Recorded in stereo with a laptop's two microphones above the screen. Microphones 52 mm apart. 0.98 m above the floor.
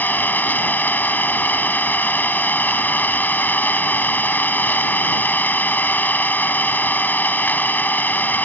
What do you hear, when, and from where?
0.0 s an engine running: 35° left (ahead or behind)